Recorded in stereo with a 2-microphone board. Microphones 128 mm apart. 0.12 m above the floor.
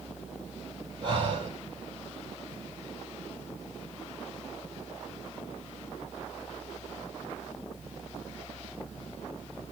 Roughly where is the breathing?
Right.